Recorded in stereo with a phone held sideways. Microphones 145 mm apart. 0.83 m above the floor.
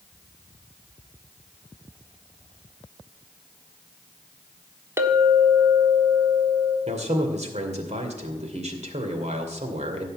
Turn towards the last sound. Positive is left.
turn(degrees=-45)  # may be behind; listen again after turning